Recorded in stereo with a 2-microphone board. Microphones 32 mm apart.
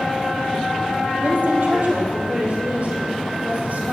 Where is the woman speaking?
70° right (ahead or behind), 4 m; by 3.9 s 60° right (ahead or behind), 6 m.